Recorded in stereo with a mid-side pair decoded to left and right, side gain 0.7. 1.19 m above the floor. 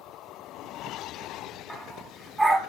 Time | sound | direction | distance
1.7 | a dog barking | 10° right | 3 m